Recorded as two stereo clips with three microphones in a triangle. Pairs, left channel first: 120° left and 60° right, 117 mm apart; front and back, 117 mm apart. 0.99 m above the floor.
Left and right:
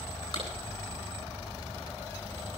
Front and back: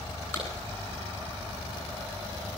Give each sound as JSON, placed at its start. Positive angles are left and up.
{"t": 0.3, "sound": "a clap", "azimuth_deg": 70, "distance_m": 10.0}